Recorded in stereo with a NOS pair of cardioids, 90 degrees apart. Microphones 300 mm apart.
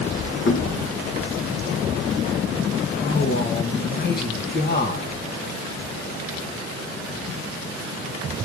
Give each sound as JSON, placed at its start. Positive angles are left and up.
{"t": 0.5, "sound": "knocking", "azimuth_deg": 45, "distance_m": 1.7}
{"t": 3.0, "sound": "a man speaking", "azimuth_deg": 35, "distance_m": 2.0}